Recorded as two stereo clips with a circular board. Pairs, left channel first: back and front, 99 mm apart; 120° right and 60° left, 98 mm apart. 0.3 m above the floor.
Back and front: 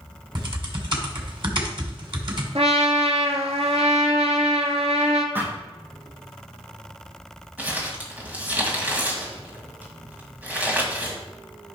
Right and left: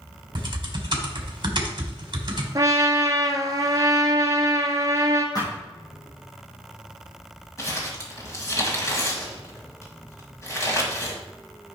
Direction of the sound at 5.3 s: 70° right.